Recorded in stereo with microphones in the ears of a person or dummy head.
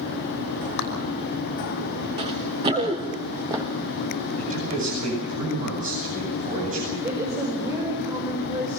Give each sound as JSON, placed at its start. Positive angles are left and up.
{"t": 0.8, "sound": "a clap", "side_deg": 55, "distance_m": 5.5}
{"t": 2.2, "sound": "running footsteps", "side_deg": -25, "distance_m": 4.5}
{"t": 4.4, "sound": "a man speaking", "side_deg": -45, "distance_m": 10.0}
{"t": 7.0, "sound": "a woman speaking", "side_deg": -25, "distance_m": 4.5}